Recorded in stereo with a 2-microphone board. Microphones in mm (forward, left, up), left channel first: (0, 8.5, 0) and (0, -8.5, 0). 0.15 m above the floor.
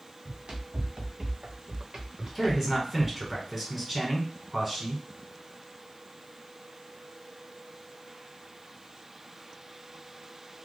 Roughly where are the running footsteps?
Right.